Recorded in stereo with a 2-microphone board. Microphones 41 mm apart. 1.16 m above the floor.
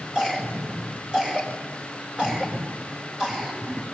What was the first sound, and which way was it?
A cough, 20° right (ahead or behind).